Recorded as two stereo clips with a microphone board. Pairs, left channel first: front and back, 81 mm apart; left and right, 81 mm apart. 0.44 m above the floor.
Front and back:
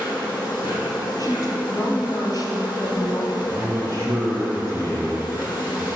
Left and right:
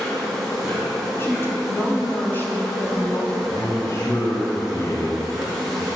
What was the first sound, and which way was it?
An insect, 5° right.